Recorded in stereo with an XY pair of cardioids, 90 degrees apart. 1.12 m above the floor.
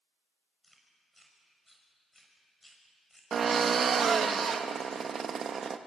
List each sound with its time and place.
0.6 s chewing: 10° left, 6 m
3.3 s a drill: 55° right, 1.3 m